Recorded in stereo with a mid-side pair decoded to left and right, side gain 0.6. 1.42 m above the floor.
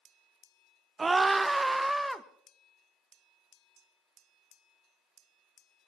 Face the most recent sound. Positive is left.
turn(degrees=0)